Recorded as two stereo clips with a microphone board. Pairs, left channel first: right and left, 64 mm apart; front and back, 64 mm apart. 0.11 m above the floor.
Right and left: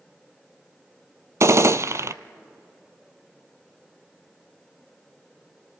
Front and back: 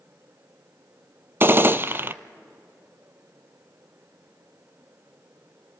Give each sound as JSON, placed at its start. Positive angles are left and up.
{"t": 1.4, "sound": "a gunshot", "azimuth_deg": 125, "distance_m": 0.5}